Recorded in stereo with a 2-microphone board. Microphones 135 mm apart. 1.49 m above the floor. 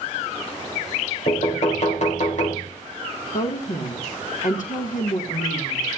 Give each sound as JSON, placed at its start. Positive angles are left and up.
{"t": 1.3, "sound": "knocking", "side_deg": 60, "distance_m": 3.5}
{"t": 3.3, "sound": "a woman speaking", "side_deg": 70, "distance_m": 2.0}